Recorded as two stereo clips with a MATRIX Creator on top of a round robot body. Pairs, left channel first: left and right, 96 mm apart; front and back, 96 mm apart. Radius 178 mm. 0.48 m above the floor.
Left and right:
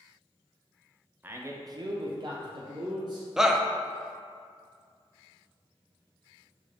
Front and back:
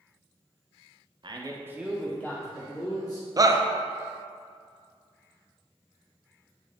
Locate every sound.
1.2 s a man speaking: 155° right, 1.0 m; by 3.3 s 45° right, 1.8 m
3.4 s a shout: 170° right, 0.8 m